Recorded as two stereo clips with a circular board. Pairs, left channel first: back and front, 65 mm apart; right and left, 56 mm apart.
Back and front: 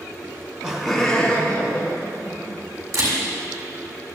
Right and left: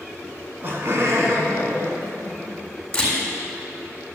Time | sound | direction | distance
0.2 | laughter | 35° left | 1.3 m
2.9 | a camera shutter | 20° right | 3.5 m